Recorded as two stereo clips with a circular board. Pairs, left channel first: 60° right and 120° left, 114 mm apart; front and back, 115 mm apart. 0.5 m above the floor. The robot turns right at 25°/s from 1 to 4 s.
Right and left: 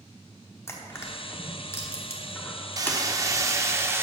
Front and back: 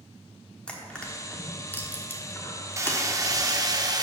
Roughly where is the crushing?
Ahead right.